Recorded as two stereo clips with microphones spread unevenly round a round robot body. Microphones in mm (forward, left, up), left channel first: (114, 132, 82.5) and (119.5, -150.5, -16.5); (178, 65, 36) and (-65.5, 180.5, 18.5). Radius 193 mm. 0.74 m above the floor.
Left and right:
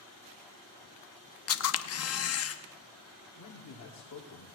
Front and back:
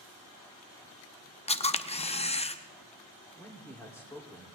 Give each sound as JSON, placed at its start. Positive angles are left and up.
{"t": 1.5, "sound": "a camera shutter", "azimuth_deg": 45, "distance_m": 1.0}
{"t": 3.4, "sound": "a man speaking", "azimuth_deg": 55, "distance_m": 2.5}